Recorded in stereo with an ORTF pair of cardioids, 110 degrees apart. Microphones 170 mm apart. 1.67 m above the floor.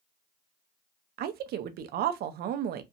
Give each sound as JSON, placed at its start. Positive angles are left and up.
{"t": 1.2, "sound": "a woman speaking", "azimuth_deg": -65, "distance_m": 0.5}